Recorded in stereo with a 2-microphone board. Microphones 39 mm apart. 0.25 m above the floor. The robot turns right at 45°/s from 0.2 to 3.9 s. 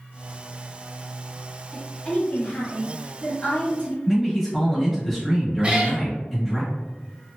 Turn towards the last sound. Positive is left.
turn(degrees=-25)  # may be behind; listen again after turning